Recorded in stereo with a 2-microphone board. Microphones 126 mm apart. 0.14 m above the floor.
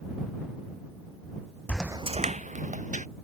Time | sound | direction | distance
1.7 | footsteps | 10° left (ahead or behind) | ?